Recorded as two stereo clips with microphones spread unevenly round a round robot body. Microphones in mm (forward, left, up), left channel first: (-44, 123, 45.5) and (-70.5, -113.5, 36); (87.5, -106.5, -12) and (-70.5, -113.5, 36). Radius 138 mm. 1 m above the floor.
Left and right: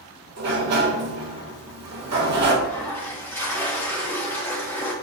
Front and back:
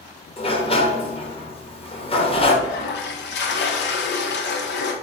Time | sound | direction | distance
0.4 | a sliding door | 60° right | 1.4 m
2.6 | a toilet flushing | straight ahead | 0.9 m